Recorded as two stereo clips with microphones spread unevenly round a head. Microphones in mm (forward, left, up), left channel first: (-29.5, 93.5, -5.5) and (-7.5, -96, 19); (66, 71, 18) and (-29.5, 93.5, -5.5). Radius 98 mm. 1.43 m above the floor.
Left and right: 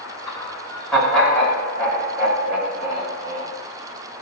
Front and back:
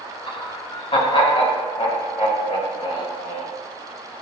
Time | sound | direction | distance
0.3 | laughter | 20° left | 5 m